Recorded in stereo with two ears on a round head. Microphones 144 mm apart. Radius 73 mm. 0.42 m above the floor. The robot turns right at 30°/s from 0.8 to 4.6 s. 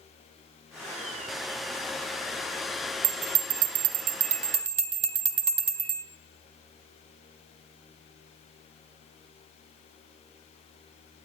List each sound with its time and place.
3.0 s a bell: 60° right (ahead or behind), 1.9 m; by 6.0 s 40° right (ahead or behind), 1.9 m